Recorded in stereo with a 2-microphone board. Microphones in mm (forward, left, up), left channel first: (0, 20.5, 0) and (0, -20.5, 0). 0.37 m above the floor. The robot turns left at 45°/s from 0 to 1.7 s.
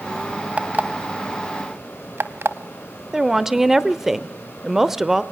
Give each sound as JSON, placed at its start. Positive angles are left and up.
{"t": 0.6, "sound": "an alarm clock", "side_deg": -35, "distance_m": 0.8}
{"t": 3.1, "sound": "a woman speaking", "side_deg": -10, "distance_m": 0.8}